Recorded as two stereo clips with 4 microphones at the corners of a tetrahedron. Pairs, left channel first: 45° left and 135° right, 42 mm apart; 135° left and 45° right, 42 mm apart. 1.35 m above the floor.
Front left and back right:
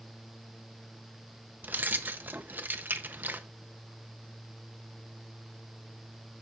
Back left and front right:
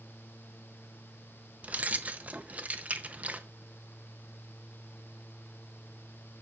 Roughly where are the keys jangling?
Right.